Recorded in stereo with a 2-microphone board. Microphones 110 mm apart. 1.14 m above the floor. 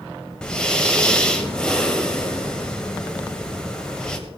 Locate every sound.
0.4 s breathing: 5° left (ahead or behind), 1.4 m